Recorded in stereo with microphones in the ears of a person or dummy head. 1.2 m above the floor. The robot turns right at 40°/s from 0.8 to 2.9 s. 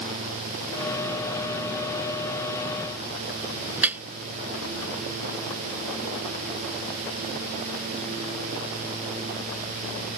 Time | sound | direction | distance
3.8 | dripping | 5° right (ahead or behind) | ?